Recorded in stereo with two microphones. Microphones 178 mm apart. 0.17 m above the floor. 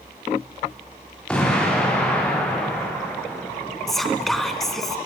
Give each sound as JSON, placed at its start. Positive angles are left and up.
{"t": 1.3, "sound": "an explosion", "side_deg": 5, "distance_m": 8.5}
{"t": 3.9, "sound": "whispering", "side_deg": 0, "distance_m": 1.8}